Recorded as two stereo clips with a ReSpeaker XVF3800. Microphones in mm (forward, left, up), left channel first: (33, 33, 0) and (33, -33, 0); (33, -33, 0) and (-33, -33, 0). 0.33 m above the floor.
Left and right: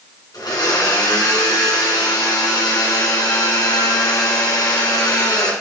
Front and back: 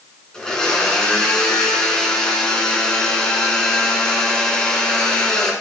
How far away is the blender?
About 2 m.